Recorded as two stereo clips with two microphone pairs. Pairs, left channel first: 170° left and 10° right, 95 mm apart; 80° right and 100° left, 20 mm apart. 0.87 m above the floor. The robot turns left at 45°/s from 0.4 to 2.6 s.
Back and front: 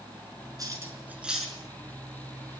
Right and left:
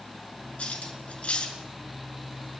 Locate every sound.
0.6 s cutlery clinking: 60° right, 6 m; by 1.6 s 105° right, 6 m